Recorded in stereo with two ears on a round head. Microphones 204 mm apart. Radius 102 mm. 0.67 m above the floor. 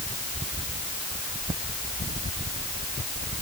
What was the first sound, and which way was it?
Only background noise.